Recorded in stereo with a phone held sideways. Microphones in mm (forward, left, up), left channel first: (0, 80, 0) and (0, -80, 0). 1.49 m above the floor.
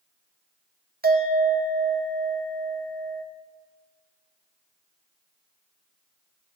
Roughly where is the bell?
Right.